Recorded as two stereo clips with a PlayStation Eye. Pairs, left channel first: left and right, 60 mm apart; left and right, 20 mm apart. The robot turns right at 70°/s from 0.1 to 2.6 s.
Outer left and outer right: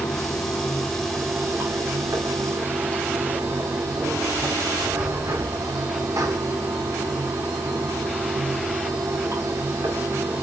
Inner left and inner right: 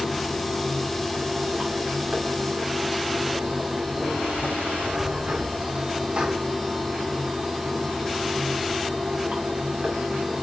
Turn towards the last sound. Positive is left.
turn(degrees=-70)